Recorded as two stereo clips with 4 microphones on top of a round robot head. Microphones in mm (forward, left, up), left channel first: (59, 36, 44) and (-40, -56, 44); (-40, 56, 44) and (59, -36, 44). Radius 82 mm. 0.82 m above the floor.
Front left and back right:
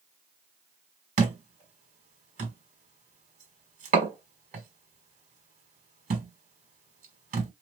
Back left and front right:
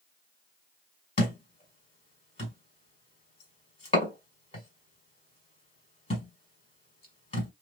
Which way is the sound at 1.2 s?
175° right.